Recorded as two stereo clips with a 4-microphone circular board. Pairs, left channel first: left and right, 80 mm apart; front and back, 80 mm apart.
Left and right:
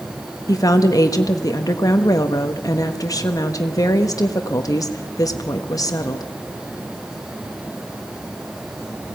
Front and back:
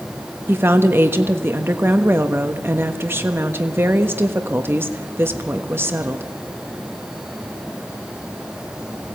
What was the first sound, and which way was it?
A woman speaking, 125° left.